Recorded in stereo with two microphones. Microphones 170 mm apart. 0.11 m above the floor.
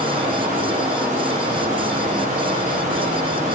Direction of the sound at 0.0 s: 45° right (ahead or behind).